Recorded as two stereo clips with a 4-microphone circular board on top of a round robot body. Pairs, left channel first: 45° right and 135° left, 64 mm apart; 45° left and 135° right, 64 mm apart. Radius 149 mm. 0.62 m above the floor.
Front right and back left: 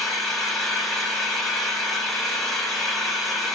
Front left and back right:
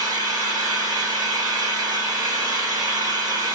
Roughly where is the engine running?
Behind right.